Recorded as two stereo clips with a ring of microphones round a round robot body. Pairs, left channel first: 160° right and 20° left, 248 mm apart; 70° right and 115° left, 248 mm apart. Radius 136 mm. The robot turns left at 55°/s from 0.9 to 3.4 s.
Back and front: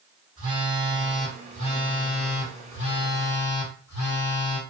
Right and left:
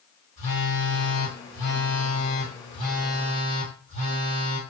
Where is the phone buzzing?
50° right, 2.0 m; by 4.6 s 170° left, 2.0 m.